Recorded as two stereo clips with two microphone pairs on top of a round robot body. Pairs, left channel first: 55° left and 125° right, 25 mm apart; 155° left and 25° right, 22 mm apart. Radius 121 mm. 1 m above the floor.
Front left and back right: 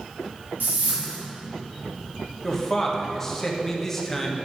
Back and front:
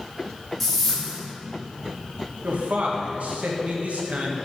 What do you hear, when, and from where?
0.6 s a whoosh: 130° right, 2.5 m
2.4 s a man speaking: 10° right, 1.5 m